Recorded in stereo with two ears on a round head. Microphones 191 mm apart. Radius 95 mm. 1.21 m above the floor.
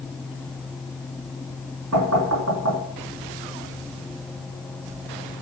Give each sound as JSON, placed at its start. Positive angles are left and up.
{"t": 1.9, "sound": "knocking", "side_deg": -75, "distance_m": 2.5}